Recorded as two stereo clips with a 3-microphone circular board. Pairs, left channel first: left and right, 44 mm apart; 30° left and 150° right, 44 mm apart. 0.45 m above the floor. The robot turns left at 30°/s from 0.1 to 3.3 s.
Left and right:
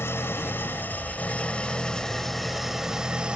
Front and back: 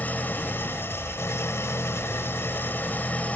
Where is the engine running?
75° left, 1.0 m; by 3.4 s 20° right, 1.0 m.